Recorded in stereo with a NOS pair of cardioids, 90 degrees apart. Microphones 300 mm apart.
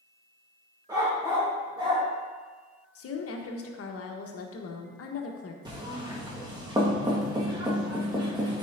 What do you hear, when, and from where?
0.9 s a dog barking: 15° right, 2.0 m
3.0 s a woman speaking: 50° left, 1.1 m
5.7 s knocking: 15° right, 1.6 m